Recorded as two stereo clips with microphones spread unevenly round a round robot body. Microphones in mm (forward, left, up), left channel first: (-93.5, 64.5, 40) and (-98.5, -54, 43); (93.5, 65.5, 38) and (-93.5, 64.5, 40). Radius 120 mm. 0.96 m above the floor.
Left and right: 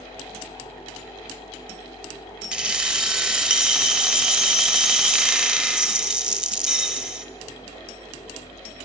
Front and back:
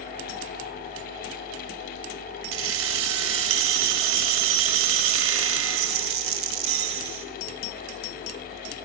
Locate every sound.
2.5 s keys jangling: 175° right, 0.8 m